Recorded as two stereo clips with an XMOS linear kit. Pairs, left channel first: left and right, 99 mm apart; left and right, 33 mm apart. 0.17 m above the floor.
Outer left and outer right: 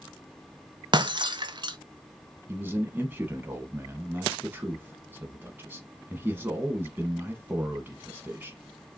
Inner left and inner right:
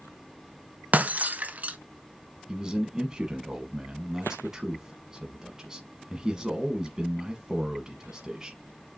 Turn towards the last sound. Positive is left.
turn(degrees=-20)  # may be behind; listen again after turning